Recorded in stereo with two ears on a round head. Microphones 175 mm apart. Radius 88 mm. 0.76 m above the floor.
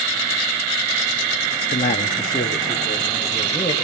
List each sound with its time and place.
1.7 s a man speaking: 40° left (ahead or behind), 1.1 m; by 3.7 s 15° left (ahead or behind), 4 m